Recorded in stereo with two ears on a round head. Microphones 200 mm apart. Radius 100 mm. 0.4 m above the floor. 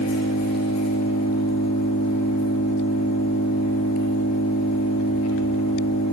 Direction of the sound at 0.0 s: 80° left.